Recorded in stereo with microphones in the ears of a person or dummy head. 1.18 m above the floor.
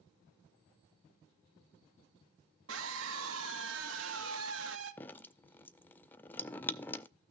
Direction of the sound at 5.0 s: 20° left (ahead or behind).